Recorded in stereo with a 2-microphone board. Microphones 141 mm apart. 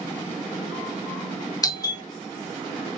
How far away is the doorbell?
About 0.7 m.